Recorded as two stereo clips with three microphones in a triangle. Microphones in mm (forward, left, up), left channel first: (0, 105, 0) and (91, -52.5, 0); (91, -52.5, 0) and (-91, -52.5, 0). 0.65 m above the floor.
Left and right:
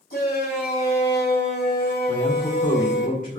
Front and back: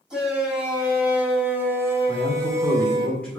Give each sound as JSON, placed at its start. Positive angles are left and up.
{"t": 0.1, "sound": "a shout", "azimuth_deg": 95, "distance_m": 3.5}
{"t": 2.1, "sound": "a man speaking", "azimuth_deg": 85, "distance_m": 2.0}